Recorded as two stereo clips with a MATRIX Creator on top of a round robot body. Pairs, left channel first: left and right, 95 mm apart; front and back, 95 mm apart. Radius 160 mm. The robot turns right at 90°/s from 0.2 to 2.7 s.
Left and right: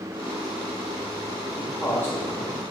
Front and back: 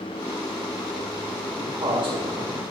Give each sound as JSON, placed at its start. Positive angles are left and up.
{"t": 1.6, "sound": "a man speaking", "azimuth_deg": 115, "distance_m": 2.0}